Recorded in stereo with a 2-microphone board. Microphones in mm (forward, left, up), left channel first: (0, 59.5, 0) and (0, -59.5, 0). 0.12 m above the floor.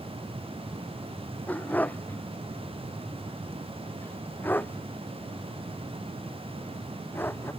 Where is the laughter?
No laughter in this recording.